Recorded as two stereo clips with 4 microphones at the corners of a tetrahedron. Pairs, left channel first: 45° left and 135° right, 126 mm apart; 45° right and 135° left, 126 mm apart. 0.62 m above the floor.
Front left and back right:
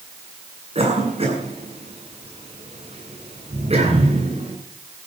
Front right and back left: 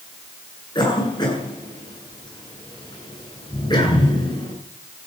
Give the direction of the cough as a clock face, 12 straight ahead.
3 o'clock.